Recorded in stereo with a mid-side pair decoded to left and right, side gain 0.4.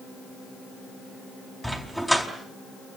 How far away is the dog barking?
About 4.5 m.